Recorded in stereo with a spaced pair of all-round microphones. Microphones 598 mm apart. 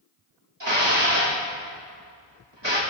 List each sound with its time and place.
0.6 s dishes clattering: 45° right (ahead or behind), 2.5 m